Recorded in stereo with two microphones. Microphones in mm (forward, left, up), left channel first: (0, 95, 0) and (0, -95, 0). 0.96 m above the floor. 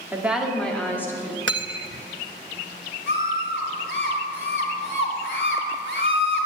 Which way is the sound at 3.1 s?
75° left (ahead or behind).